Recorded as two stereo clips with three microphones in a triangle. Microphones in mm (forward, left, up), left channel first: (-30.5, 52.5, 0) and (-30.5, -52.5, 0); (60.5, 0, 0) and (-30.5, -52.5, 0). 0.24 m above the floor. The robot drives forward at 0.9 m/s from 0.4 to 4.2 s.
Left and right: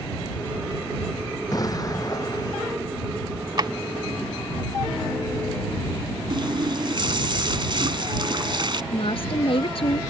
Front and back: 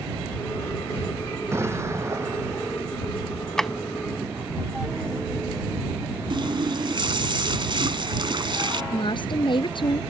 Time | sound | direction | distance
1.5 | an explosion | 145° left | ?
3.6 | a drawer | 50° right | ?
6.3 | a running tap | 120° right | ?
8.9 | a woman speaking | 65° left | ?